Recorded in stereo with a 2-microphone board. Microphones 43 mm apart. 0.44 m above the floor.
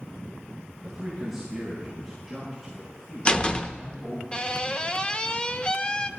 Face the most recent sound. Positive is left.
turn(degrees=25)  # may be behind; listen again after turning